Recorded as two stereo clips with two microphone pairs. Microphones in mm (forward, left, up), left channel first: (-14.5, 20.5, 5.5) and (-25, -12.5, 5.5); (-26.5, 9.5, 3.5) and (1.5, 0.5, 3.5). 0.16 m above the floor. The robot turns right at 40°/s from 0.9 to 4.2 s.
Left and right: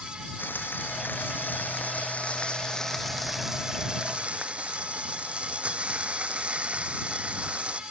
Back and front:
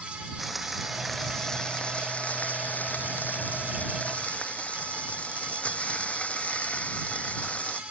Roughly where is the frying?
Left.